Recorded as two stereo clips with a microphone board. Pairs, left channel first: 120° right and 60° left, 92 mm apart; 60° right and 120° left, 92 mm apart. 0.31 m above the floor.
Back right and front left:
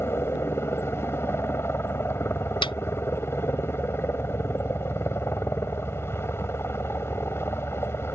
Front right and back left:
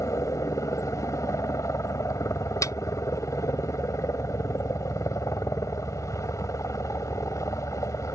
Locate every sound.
0.0 s a helicopter: 80° right
2.6 s a snare drum: 110° right